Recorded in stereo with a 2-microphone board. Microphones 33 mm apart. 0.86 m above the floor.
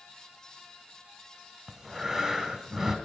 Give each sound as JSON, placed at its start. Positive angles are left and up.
{"t": 1.7, "sound": "breathing", "side_deg": -20, "distance_m": 1.3}